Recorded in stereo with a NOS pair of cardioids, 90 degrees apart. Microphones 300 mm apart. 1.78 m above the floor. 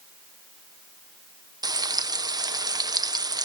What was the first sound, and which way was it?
Frying, 15° right.